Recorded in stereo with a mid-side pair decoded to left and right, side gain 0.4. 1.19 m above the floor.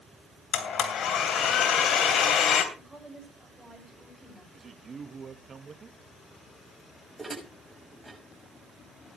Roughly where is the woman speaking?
Ahead.